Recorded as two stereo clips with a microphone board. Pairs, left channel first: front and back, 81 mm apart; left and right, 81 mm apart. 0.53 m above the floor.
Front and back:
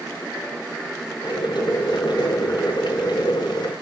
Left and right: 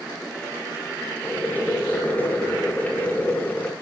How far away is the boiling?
About 4 m.